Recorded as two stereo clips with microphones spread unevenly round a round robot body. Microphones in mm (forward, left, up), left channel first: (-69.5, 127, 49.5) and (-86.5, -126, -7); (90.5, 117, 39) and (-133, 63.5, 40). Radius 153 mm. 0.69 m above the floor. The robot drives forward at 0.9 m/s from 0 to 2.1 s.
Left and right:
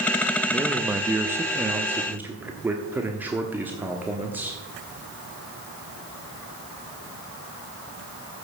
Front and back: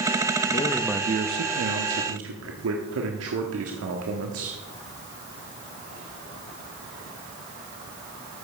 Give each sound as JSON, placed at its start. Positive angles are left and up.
{"t": 0.5, "sound": "a man speaking", "azimuth_deg": -25, "distance_m": 0.6}